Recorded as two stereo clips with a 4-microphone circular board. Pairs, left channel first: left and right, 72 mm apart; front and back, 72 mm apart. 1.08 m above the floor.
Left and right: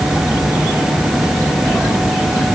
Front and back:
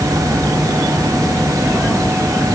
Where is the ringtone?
No ringtone in this recording.